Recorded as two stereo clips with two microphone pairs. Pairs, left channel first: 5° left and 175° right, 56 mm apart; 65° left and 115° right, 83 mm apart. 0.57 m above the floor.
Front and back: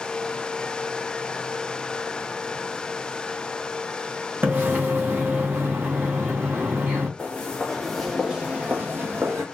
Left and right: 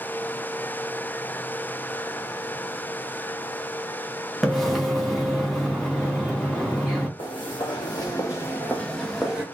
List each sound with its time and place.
4.4 s a splash: 160° left, 1.0 m
7.2 s footsteps: 70° left, 1.4 m; by 9.4 s 170° left, 1.1 m